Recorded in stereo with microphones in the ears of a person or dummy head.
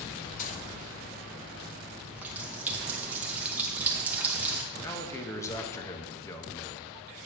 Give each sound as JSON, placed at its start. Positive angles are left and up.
{"t": 0.4, "sound": "a gunshot", "side_deg": 45, "distance_m": 0.7}
{"t": 2.0, "sound": "a running tap", "side_deg": -5, "distance_m": 0.9}
{"t": 4.7, "sound": "a man speaking", "side_deg": 15, "distance_m": 0.9}